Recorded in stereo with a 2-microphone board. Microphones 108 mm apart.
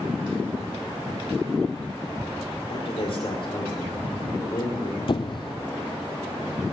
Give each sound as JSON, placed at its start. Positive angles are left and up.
{"t": 2.7, "sound": "a man speaking", "side_deg": 60, "distance_m": 6.0}
{"t": 5.1, "sound": "a squeak", "side_deg": 50, "distance_m": 0.6}